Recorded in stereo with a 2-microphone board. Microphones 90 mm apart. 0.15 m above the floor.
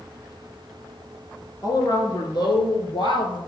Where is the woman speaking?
50° left (ahead or behind), 2.5 m; by 3.4 s 60° left (ahead or behind), 3 m.